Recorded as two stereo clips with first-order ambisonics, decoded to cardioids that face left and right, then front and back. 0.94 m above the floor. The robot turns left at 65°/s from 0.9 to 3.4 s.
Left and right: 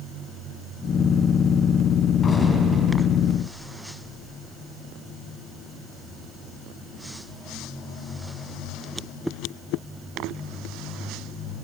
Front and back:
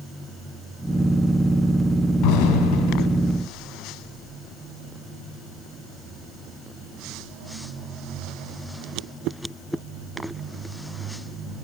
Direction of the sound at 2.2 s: 20° left.